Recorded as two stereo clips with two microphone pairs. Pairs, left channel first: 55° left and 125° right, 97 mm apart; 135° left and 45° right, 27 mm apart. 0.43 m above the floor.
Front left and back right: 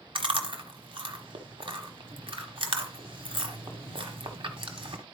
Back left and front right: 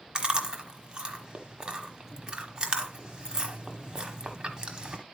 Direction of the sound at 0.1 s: 105° right.